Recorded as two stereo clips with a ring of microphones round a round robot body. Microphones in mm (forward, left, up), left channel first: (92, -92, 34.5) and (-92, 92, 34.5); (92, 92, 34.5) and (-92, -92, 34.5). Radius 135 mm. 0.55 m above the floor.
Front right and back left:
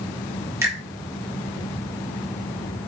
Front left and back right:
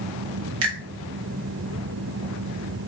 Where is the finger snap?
145° right, 1.2 m.